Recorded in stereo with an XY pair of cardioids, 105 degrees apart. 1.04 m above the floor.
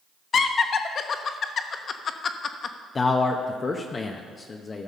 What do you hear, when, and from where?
0.3 s laughter: 50° left, 1.1 m
3.0 s a man speaking: 30° left, 0.8 m